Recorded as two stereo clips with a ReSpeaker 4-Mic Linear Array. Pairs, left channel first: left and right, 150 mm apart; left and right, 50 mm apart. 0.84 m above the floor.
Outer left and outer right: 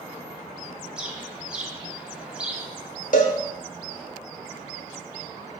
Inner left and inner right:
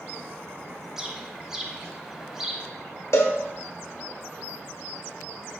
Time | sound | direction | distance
1.0 | a bird | 5° right (ahead or behind) | 0.7 m
3.1 | a cowbell | 65° left (ahead or behind) | 1.0 m